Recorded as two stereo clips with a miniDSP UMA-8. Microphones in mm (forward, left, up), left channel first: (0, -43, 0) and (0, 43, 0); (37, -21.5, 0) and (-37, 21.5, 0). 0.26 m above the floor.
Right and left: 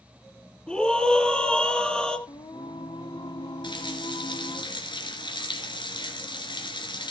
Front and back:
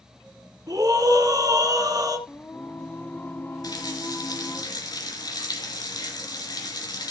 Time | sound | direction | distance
0.7 | a scream | 170° right | 3 m
2.3 | singing | 95° right | 0.6 m
3.6 | a running tap | 70° right | 2.5 m